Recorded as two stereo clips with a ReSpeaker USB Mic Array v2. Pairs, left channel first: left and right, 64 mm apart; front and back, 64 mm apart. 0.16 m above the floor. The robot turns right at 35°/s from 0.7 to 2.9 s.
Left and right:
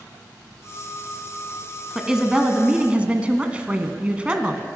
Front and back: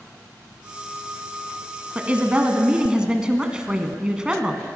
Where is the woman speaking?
155° right, 1.2 m; by 4.6 s 125° right, 1.2 m.